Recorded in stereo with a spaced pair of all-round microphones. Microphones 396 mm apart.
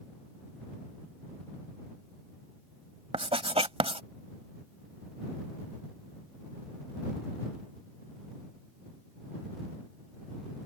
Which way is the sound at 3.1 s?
15° right (ahead or behind).